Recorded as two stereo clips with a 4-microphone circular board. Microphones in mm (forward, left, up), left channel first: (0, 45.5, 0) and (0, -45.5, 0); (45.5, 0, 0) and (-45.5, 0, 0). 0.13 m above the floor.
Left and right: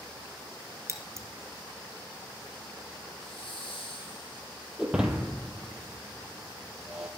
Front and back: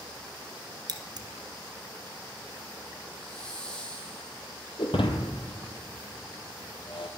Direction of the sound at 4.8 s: 10° right.